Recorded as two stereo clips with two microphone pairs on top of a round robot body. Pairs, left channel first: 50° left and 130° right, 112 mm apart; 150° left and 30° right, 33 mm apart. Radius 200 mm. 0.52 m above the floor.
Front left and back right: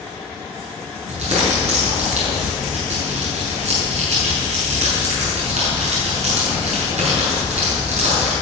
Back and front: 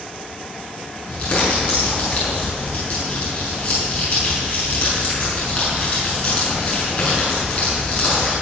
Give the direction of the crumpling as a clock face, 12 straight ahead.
5 o'clock.